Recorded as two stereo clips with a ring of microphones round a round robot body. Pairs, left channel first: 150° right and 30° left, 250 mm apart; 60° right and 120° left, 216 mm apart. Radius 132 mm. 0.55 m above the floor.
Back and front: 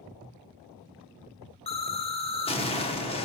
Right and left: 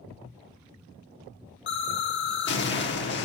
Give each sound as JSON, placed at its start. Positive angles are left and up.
{"t": 1.7, "sound": "an explosion", "azimuth_deg": -85, "distance_m": 0.9}